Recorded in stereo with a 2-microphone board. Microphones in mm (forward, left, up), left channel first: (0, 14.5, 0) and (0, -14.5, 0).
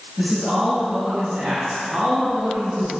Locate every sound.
0.2 s a man speaking: 40° right (ahead or behind), 1.7 m; by 2.9 s 45° right (ahead or behind), 3.5 m